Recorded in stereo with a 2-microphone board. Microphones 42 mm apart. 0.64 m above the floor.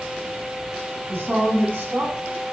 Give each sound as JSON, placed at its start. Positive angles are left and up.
{"t": 1.1, "sound": "a woman speaking", "side_deg": -55, "distance_m": 5.0}